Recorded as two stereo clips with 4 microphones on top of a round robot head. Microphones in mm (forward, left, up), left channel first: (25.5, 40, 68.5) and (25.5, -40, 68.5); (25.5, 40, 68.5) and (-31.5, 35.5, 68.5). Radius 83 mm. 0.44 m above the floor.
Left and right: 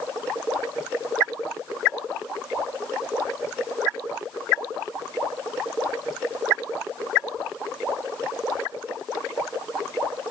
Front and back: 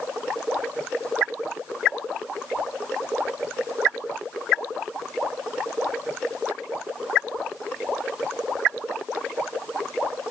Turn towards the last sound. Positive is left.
No sound to turn to.